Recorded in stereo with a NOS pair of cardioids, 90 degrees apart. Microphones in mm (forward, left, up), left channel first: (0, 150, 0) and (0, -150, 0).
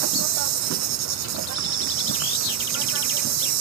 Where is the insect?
65° right.